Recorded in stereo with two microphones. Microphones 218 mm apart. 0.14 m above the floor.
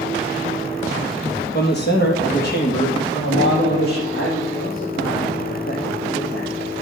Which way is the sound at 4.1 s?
50° left (ahead or behind).